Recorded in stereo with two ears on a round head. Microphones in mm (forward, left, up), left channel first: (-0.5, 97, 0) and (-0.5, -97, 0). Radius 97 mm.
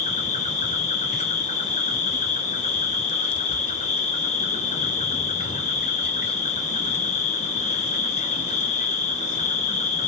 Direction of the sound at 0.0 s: 35° left (ahead or behind).